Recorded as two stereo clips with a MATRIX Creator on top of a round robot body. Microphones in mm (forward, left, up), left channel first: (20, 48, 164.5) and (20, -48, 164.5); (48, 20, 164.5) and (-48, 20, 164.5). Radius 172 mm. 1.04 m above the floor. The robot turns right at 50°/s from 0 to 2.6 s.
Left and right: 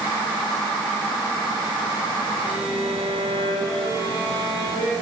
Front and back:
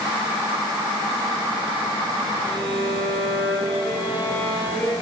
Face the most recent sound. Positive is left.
turn(degrees=70)